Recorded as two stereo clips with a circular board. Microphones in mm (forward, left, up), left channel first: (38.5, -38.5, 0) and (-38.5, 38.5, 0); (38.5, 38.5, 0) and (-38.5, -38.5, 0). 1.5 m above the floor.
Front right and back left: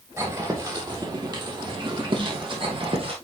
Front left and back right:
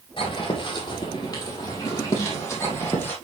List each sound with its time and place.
0.2 s footsteps: 80° left, 3.5 m; by 3.1 s 115° left, 3.5 m